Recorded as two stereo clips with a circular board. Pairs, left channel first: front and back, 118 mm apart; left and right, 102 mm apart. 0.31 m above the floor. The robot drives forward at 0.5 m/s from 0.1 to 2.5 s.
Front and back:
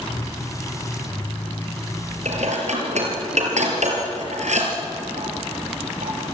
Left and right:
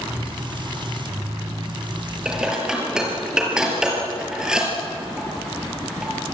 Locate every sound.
2.2 s dishes clattering: 170° right, 5 m